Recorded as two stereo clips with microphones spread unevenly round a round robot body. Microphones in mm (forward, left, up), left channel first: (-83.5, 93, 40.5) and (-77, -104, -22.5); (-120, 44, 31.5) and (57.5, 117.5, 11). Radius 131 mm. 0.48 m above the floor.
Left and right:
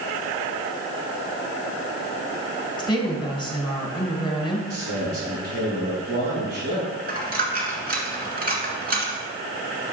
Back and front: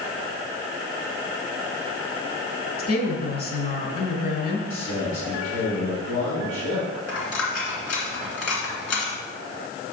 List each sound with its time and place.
2.8 s a woman speaking: 165° left, 1.8 m
4.7 s a man speaking: 125° right, 3.5 m
7.1 s a dropped coin: 135° right, 2 m